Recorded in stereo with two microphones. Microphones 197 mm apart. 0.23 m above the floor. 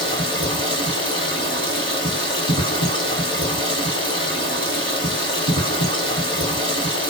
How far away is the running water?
About 1.2 m.